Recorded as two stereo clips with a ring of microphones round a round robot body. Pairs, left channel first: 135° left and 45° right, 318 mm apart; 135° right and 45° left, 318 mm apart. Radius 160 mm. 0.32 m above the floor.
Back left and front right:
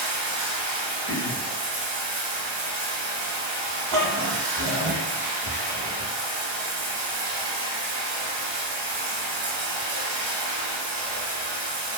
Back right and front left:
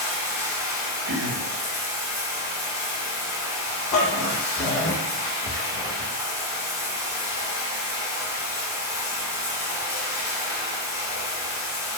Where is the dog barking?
90° right, 0.7 m.